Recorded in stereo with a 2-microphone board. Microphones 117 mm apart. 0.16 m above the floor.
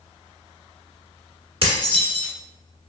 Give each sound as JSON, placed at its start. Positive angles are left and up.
{"t": 1.6, "sound": "dishes clattering", "side_deg": -45, "distance_m": 1.3}